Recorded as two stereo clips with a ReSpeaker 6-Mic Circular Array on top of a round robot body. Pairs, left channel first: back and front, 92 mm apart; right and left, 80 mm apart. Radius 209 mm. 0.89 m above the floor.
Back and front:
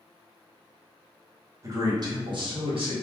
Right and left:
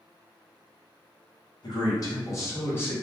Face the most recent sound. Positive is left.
turn(degrees=-25)